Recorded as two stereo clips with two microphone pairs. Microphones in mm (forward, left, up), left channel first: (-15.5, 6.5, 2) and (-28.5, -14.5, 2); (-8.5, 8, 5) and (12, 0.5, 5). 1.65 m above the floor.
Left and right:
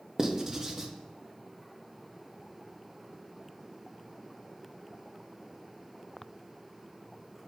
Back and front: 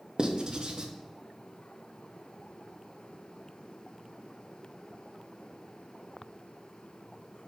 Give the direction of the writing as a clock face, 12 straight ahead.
2 o'clock.